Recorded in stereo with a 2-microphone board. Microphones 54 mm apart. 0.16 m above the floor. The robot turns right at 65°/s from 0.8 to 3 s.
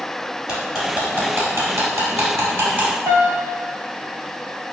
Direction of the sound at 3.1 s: 65° right (ahead or behind).